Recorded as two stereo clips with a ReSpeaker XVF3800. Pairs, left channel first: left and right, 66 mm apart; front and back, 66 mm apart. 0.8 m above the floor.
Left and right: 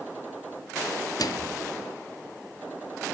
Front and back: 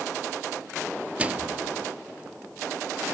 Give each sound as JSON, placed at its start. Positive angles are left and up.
{"t": 1.2, "sound": "a microwave", "azimuth_deg": 110, "distance_m": 0.9}